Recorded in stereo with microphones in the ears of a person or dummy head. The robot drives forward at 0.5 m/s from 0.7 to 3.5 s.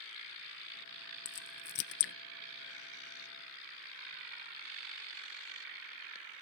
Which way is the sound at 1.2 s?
55° left (ahead or behind).